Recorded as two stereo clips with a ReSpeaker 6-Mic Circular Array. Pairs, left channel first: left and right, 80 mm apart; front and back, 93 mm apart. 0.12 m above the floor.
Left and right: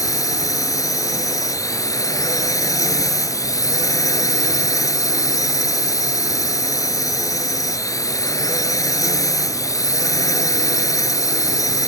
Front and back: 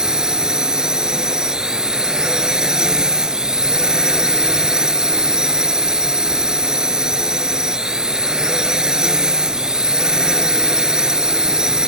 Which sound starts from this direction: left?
A drone, at 0.0 s.